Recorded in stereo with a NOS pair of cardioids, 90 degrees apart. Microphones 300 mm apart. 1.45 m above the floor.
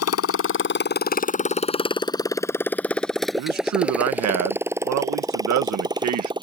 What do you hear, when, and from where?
0.0 s a motorcycle: 55° left; by 6.4 s 15° right
3.4 s a man speaking: 65° right